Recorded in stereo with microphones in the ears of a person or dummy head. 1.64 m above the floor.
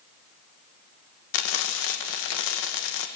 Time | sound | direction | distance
1.3 | frying | 70° left (ahead or behind) | 1.8 m